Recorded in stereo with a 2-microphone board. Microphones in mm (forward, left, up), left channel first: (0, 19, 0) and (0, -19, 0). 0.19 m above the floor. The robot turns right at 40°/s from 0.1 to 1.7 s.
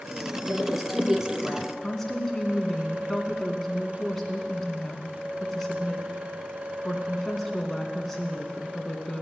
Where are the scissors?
No scissors in this recording.